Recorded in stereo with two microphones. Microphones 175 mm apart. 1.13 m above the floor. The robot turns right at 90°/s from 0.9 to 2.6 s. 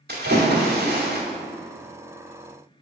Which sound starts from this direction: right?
A splash, at 0.1 s.